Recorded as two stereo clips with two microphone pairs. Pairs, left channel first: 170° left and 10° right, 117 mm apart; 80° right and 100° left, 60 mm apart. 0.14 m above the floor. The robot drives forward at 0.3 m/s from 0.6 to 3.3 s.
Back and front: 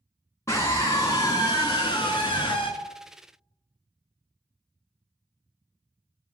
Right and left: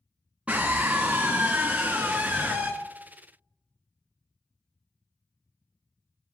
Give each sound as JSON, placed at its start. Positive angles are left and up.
{"t": 0.5, "sound": "a scream", "azimuth_deg": 140, "distance_m": 1.4}